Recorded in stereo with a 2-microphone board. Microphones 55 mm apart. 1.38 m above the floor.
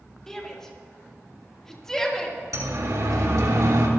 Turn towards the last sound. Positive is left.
turn(degrees=-80)